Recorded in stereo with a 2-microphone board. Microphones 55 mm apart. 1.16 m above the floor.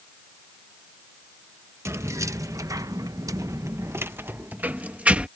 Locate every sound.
1.9 s keys jangling: 50° right (ahead or behind); by 5.3 s 25° right (ahead or behind)